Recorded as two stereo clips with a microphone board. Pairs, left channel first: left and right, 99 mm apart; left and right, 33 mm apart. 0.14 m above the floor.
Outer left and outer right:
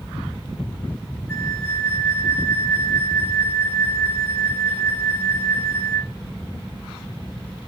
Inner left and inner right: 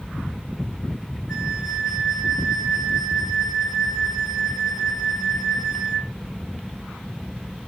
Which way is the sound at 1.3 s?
15° right (ahead or behind).